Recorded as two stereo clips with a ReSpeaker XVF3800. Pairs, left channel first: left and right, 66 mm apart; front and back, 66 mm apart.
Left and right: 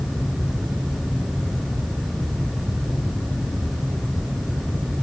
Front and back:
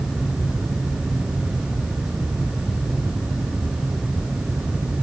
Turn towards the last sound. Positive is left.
No sound to turn to.